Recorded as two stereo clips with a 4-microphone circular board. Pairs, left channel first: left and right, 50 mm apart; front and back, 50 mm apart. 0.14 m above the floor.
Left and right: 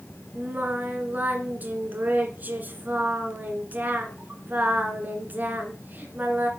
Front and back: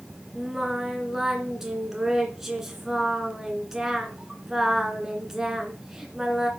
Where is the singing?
100° right, 2.0 m.